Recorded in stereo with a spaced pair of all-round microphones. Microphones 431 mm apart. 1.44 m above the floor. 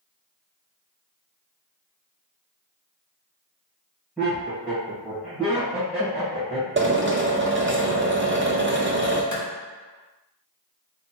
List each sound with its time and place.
4.2 s laughter: centre (ahead or behind), 1.7 m
6.8 s a drill: 30° right (ahead or behind), 0.7 m
9.3 s a clap: 45° left (ahead or behind), 1.1 m